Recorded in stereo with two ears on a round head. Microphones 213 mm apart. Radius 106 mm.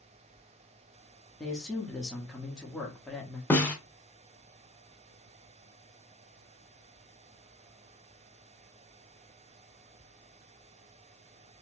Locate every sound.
1.4 s a man speaking: 5° left (ahead or behind), 0.9 m
3.5 s a snare drum: 5° left (ahead or behind), 0.7 m